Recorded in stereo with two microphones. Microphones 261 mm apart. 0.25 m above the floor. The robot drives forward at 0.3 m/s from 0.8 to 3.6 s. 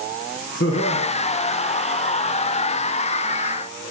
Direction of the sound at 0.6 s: 55° left (ahead or behind).